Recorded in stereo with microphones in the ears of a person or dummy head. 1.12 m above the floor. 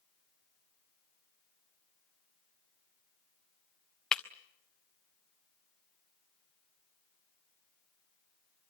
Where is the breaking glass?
Centre (ahead or behind), 0.8 m.